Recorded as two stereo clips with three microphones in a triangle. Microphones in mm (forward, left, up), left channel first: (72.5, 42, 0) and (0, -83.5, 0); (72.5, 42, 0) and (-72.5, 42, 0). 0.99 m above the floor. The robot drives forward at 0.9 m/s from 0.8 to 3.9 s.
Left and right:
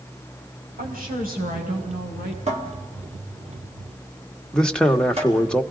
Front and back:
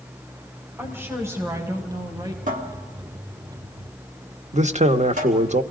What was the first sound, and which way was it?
A woman speaking, 105° right.